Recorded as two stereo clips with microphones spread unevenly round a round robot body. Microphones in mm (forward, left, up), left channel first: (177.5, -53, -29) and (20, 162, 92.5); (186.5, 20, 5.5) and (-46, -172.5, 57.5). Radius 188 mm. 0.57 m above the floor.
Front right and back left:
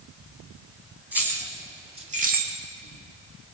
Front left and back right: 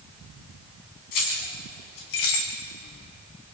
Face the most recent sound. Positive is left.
turn(degrees=70)